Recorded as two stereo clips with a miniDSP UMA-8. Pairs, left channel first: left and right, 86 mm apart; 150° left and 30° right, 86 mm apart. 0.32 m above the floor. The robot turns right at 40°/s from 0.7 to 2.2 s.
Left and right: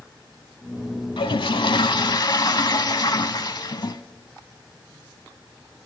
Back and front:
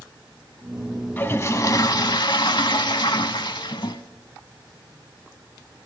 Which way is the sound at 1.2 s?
80° left.